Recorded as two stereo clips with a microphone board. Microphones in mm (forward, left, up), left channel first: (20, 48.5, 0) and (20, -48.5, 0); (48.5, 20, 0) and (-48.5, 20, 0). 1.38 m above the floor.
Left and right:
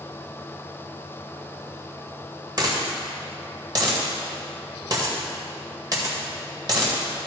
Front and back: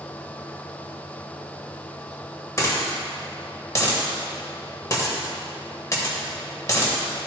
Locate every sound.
2.6 s a dropped coin: 50° right, 1.9 m